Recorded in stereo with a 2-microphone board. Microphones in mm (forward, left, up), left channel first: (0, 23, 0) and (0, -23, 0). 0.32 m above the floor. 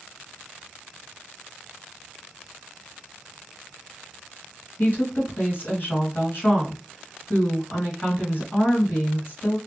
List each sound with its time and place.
4.8 s a woman speaking: 45° left (ahead or behind), 1.8 m